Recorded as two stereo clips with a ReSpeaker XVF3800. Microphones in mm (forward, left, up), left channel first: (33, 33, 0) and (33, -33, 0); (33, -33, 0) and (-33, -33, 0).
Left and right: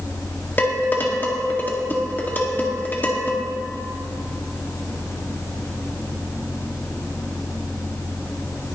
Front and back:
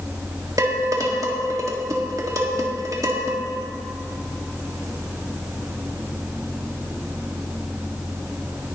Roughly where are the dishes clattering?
Behind left.